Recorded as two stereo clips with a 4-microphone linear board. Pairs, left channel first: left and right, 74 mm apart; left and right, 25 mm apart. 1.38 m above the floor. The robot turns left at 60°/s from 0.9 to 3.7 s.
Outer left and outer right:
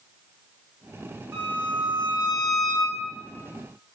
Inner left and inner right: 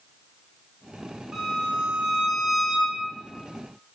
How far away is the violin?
About 1.7 m.